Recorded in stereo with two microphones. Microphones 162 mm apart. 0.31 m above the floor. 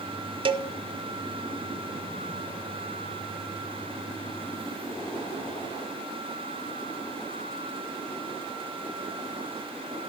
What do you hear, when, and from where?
0.5 s a cowbell: 30° right (ahead or behind), 0.7 m